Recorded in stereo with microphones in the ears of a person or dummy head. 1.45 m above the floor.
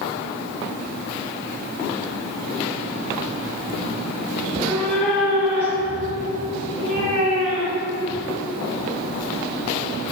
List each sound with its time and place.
4.4 s a cat meowing: 15° left (ahead or behind), 1.7 m; by 8.0 s 50° right (ahead or behind), 2.5 m